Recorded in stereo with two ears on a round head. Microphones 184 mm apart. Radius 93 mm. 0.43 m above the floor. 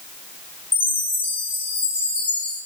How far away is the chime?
About 4.5 m.